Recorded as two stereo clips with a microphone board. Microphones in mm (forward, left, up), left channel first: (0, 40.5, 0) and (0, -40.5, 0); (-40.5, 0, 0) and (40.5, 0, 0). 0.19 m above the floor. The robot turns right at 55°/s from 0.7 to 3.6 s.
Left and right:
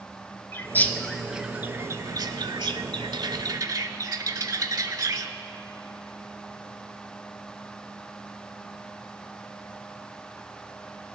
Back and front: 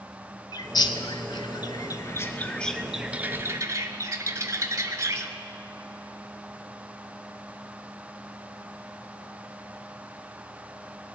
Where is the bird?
150° left, 0.6 m; by 5.3 s 50° right, 0.6 m.